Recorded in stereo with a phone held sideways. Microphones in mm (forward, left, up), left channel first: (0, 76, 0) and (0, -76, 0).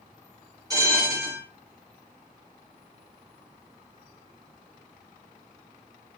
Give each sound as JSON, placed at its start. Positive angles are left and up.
{"t": 0.7, "sound": "a bell", "side_deg": -25, "distance_m": 4.0}